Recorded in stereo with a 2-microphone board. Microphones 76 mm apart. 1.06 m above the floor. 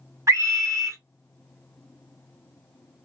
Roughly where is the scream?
Right.